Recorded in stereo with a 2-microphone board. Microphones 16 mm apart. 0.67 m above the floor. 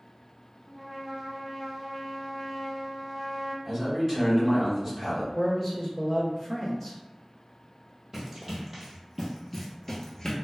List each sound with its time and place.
0.7 s a trumpet: 5° right (ahead or behind), 0.5 m
3.6 s a man speaking: 20° right (ahead or behind), 1.5 m
5.3 s a man speaking: 5° right (ahead or behind), 0.9 m
8.1 s running footsteps: 20° right (ahead or behind), 1.5 m; by 10.3 s 40° left (ahead or behind), 0.8 m